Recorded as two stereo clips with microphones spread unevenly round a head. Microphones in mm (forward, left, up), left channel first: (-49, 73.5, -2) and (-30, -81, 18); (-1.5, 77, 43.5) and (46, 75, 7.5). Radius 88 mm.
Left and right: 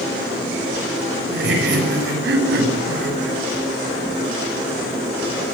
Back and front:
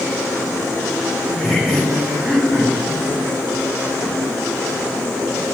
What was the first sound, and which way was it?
Laughter, 90° right.